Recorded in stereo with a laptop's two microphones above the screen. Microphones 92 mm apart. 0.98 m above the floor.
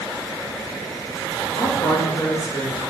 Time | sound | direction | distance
1.6 | a man speaking | 65° left (ahead or behind) | 1.4 m